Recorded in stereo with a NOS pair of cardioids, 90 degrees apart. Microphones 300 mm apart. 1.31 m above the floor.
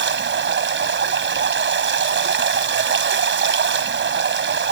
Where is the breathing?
No breathing in this recording.